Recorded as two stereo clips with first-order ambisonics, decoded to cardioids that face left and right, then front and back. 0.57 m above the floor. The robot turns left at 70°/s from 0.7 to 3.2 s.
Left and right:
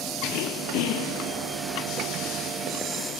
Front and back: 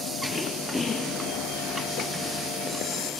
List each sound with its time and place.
0.3 s throat clearing: 85° left; by 1.5 s 30° left